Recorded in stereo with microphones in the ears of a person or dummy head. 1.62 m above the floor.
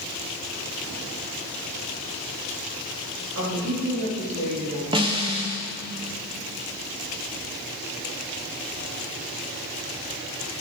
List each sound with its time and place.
3.4 s a woman speaking: 60° right (ahead or behind), 3.5 m; by 4.8 s 80° right, 4 m
4.9 s a snare drum: 25° right (ahead or behind), 1.0 m